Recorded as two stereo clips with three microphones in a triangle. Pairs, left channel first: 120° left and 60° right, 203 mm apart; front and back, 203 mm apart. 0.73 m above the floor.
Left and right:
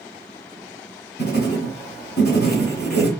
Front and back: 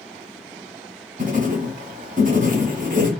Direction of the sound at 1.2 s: 140° left.